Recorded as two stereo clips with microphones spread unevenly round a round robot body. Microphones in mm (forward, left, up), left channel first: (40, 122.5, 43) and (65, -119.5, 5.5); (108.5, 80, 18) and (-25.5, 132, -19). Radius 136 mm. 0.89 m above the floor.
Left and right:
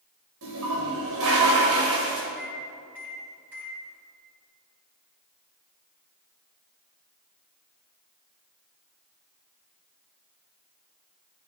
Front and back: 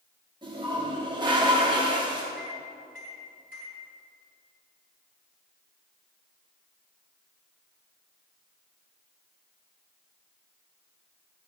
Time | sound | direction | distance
0.4 | a toilet flushing | 125° right | 2.0 m
2.4 | a microwave | straight ahead | 4.5 m